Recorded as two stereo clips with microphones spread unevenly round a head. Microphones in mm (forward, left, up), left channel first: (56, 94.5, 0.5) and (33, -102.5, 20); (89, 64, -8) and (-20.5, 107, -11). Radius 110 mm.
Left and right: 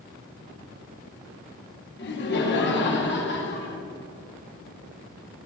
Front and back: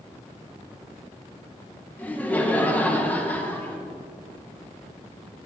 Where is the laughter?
55° left, 1.4 m.